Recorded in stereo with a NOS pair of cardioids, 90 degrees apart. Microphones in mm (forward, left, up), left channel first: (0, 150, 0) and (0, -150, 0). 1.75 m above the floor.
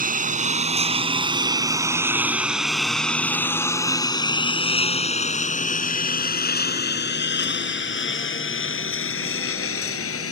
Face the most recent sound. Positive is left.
turn(degrees=50)